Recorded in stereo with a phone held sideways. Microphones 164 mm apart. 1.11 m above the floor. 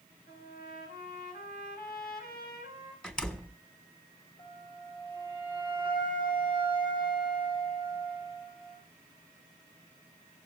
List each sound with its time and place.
0.3 s a trumpet: 75° left (ahead or behind), 6.5 m
3.0 s a door slam: 5° left (ahead or behind), 1.7 m
4.4 s a flute: 65° left (ahead or behind), 8 m